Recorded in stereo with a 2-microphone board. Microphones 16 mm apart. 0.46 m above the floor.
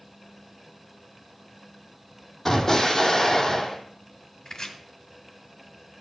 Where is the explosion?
25° left (ahead or behind), 2.5 m.